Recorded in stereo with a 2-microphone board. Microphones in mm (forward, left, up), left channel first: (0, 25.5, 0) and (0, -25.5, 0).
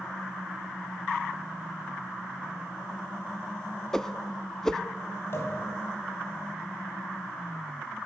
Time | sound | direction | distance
3.9 | a whoosh | 10° left (ahead or behind) | 0.5 m
5.3 | a pop | 55° left (ahead or behind) | 3 m